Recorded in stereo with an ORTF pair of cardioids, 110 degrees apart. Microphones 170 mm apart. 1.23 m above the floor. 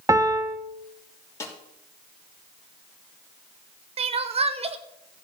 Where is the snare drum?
15° left, 3 m.